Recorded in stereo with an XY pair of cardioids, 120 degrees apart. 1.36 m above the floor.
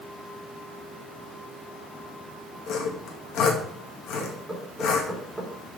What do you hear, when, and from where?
2.7 s sawing: 65° left, 2 m
4.2 s knocking: 10° right, 4 m